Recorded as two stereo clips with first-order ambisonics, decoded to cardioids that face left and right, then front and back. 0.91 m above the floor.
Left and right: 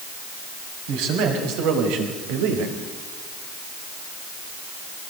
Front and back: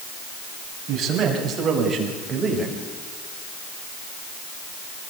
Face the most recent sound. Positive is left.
turn(degrees=-95)